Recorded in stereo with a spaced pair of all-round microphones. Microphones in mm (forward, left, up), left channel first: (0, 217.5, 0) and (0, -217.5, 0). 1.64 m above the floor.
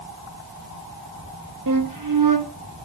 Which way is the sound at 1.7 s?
45° right (ahead or behind).